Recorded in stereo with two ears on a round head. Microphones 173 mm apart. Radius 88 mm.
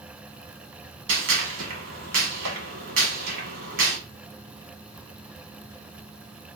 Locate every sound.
1.1 s a gunshot: 70° right (ahead or behind), 1.1 m